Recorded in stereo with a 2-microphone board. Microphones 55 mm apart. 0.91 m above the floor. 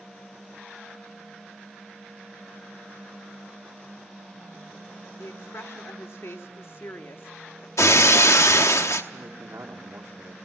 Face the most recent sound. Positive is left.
turn(degrees=-65)  # may be behind; listen again after turning